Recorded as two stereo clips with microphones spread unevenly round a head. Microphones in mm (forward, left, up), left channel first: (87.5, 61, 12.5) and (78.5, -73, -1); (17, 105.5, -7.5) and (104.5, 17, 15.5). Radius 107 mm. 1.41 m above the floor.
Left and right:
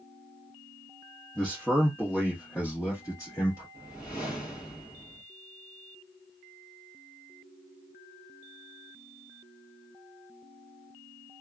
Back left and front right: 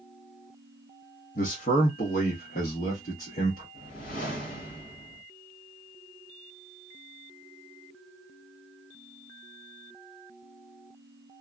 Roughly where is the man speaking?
Behind.